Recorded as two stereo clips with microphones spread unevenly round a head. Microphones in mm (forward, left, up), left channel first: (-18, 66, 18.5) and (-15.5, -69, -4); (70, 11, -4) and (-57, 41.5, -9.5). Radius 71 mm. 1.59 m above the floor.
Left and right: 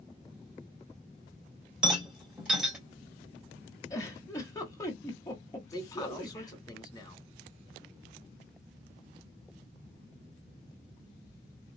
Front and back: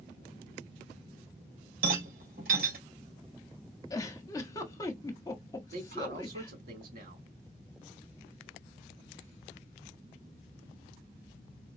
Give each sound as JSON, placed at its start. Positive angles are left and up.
{"t": 1.8, "sound": "a rattle", "azimuth_deg": -175, "distance_m": 3.0}
{"t": 3.9, "sound": "a giggle", "azimuth_deg": 40, "distance_m": 1.4}
{"t": 5.7, "sound": "a man speaking", "azimuth_deg": 155, "distance_m": 2.5}